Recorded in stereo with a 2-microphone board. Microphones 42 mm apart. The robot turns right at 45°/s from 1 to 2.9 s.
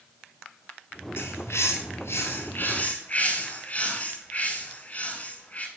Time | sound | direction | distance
1.2 | a bird | 60° left | 1.6 m